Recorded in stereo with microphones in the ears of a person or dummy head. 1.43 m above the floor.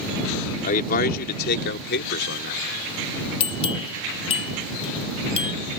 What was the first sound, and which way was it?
A man speaking, 45° left (ahead or behind).